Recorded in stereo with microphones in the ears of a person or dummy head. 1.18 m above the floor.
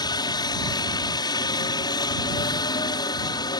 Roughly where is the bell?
I don't hear a bell.